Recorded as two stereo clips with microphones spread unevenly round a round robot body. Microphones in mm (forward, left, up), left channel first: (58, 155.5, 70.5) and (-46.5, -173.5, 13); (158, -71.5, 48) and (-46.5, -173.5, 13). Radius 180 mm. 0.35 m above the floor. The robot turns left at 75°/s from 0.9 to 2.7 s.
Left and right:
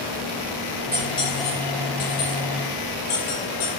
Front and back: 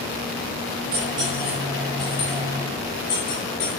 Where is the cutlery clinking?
160° left, 4.5 m; by 3.7 s 25° left, 4.5 m.